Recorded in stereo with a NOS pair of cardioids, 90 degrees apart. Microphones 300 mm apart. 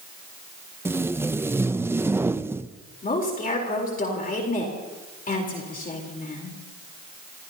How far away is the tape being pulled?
About 0.5 m.